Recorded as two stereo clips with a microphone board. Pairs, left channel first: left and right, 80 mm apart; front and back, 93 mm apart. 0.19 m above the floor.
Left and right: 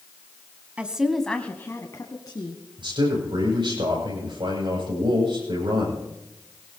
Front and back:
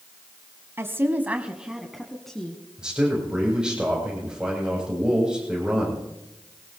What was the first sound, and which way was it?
A woman speaking, 150° right.